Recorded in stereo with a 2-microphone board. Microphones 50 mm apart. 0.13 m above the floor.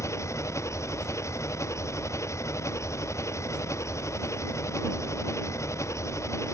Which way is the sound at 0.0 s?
75° left (ahead or behind).